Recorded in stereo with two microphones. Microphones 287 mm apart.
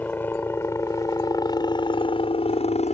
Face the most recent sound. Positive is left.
turn(degrees=25)  # may be behind; listen again after turning